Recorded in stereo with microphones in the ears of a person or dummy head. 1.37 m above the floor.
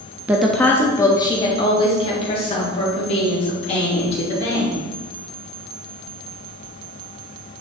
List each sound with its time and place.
0.3 s a woman speaking: 15° right (ahead or behind), 0.5 m; by 4.8 s 35° left (ahead or behind), 3.5 m